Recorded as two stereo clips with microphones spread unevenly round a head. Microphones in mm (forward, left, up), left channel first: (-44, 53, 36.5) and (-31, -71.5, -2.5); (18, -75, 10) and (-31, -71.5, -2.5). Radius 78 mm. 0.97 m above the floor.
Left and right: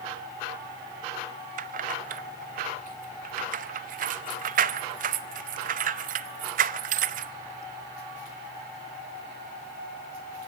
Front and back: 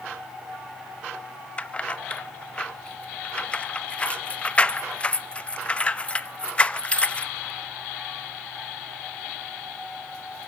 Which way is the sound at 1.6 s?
75° right.